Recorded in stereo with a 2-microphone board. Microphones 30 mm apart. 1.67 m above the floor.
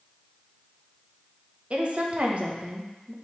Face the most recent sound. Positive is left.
turn(degrees=-45)  # may be behind; listen again after turning